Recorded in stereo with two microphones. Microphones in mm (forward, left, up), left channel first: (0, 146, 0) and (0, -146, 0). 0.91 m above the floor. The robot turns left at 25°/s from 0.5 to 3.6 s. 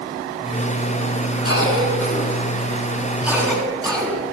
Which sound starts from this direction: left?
A cough, at 1.4 s.